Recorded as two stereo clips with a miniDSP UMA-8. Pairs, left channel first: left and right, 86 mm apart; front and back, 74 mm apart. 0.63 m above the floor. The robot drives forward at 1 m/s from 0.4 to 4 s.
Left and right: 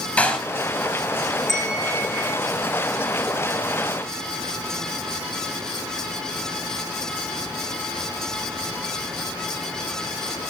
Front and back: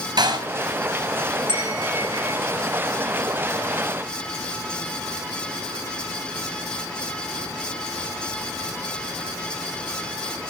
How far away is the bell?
About 7 m.